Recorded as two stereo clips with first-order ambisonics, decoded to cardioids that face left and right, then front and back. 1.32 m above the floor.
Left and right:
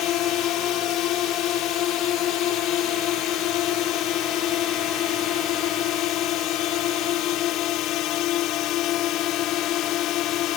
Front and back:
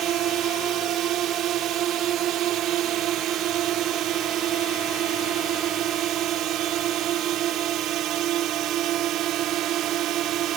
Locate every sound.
0.0 s a drone: 135° left